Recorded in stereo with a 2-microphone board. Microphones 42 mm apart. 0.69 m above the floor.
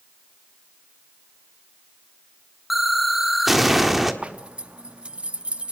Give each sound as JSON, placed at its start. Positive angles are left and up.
{"t": 2.7, "sound": "an explosion", "side_deg": -5, "distance_m": 1.5}
{"t": 4.2, "sound": "a zipper", "side_deg": -25, "distance_m": 0.6}